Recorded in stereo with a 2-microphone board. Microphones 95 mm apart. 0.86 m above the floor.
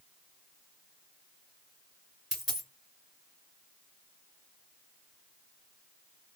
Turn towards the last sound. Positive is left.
turn(degrees=-5)  # may be behind; listen again after turning